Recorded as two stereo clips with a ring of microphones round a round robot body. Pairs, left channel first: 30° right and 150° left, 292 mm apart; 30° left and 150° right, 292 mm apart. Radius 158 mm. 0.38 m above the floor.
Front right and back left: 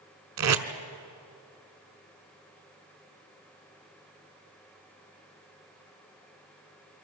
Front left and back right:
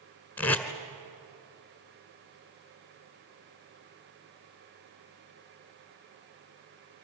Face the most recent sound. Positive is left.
turn(degrees=115)